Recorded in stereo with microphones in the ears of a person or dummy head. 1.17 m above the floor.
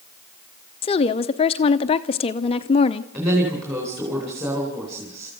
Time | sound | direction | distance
0.8 | a woman speaking | 30° left (ahead or behind) | 0.6 m
3.1 | a woman speaking | 15° right (ahead or behind) | 4 m